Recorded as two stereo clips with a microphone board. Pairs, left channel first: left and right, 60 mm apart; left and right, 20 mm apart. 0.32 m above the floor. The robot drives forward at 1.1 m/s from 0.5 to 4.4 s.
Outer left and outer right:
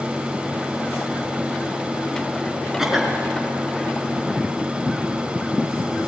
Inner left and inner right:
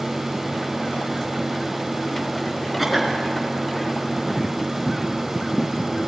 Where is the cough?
5° right (ahead or behind), 4.5 m.